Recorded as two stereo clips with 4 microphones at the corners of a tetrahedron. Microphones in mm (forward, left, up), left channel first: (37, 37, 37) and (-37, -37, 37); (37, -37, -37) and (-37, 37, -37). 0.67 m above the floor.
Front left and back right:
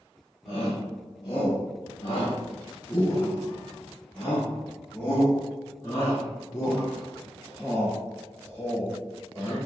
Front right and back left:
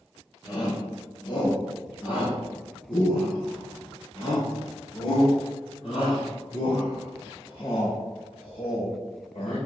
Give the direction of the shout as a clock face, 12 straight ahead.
12 o'clock.